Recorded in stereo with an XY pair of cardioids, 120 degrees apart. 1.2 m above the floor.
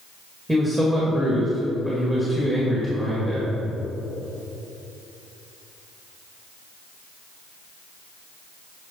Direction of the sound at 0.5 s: 10° right.